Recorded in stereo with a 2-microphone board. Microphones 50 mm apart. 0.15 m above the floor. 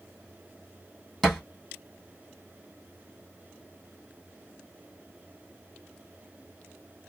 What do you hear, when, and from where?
1.2 s a thud: 5° left (ahead or behind), 2 m